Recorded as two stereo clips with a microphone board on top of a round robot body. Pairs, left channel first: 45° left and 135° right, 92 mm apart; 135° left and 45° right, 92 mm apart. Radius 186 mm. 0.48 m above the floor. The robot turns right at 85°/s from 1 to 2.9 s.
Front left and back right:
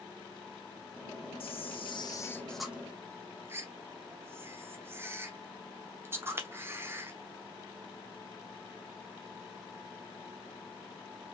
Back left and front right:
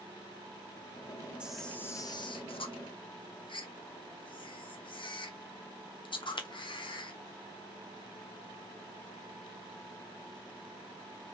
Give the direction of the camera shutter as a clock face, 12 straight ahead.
11 o'clock.